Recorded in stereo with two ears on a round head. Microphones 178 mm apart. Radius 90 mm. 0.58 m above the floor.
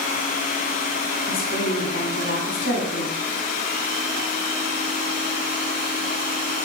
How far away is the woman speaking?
About 2 m.